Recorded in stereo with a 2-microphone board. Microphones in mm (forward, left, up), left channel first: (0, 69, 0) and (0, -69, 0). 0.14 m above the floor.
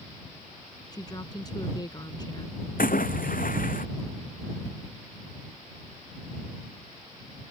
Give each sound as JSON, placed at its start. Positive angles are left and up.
{"t": 0.9, "sound": "a woman speaking", "side_deg": 30}
{"t": 2.8, "sound": "a splash", "side_deg": 80}